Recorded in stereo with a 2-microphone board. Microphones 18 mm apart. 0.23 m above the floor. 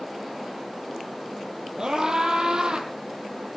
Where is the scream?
40° right (ahead or behind), 7 m; by 2.9 s 45° right (ahead or behind), 7 m.